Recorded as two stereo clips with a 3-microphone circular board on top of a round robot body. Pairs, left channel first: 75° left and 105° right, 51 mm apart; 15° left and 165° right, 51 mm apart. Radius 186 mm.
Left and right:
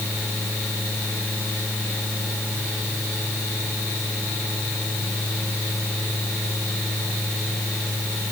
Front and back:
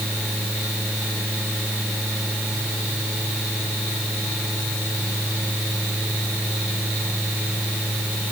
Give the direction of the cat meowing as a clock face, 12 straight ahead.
No cat meowing in this recording.